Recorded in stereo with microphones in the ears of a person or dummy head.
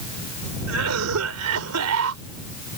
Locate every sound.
0.7 s a cough: 85° right